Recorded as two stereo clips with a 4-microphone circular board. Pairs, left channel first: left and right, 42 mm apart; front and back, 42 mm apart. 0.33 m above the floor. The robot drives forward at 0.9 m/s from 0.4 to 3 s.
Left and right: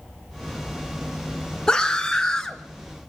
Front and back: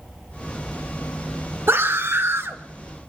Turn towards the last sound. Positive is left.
turn(degrees=165)